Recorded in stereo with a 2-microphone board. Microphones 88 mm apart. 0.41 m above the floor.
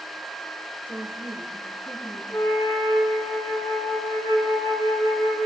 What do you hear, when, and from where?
0.9 s a woman speaking: 20° left (ahead or behind), 1.4 m; by 2.2 s 25° left (ahead or behind), 3 m
2.3 s a flute: 80° left, 4.5 m